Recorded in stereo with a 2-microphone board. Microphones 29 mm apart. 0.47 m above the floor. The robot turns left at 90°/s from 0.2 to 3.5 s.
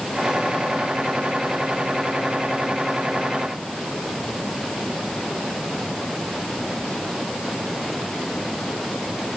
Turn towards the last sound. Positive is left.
No sound to turn to.